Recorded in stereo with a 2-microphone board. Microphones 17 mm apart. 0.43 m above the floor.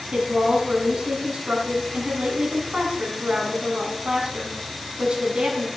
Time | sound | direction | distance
0.1 | a woman speaking | 75° right (ahead or behind) | 4 m